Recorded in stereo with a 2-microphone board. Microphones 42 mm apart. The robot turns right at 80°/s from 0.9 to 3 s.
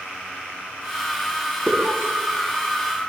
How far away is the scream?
About 4.5 m.